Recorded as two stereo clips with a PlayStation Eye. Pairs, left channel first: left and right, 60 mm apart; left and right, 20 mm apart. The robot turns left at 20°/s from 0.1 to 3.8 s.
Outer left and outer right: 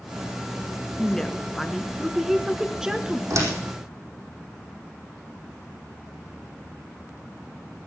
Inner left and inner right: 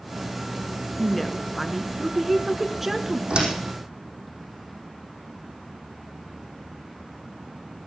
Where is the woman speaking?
20° left, 1.2 m; by 3.2 s 25° right, 1.2 m.